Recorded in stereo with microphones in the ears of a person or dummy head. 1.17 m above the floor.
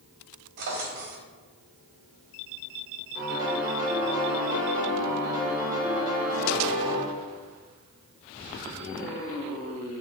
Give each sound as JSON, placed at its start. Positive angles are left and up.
{"t": 0.6, "sound": "a drawer", "side_deg": -50, "distance_m": 1.4}
{"t": 3.1, "sound": "a piano", "side_deg": -20, "distance_m": 3.0}